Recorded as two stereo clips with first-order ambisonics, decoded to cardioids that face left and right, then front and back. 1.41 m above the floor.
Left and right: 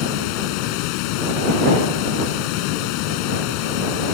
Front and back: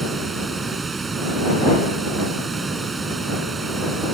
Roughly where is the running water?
Left.